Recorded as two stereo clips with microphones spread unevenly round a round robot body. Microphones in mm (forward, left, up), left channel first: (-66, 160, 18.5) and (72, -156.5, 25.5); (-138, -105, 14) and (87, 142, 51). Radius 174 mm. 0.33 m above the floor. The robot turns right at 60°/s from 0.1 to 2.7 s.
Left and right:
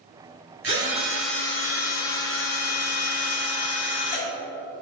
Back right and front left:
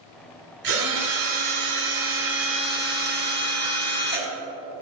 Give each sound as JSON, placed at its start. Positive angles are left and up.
{"t": 0.6, "sound": "a drill", "azimuth_deg": -15, "distance_m": 2.5}